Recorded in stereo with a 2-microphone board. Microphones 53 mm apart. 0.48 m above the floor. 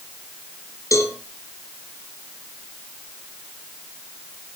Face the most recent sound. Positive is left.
turn(degrees=85)